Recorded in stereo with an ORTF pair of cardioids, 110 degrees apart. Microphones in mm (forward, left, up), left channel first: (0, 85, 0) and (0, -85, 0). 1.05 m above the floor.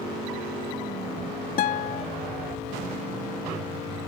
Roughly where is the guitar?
Left.